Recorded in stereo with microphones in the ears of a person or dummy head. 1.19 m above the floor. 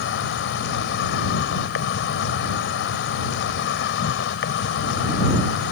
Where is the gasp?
I don't hear a gasp.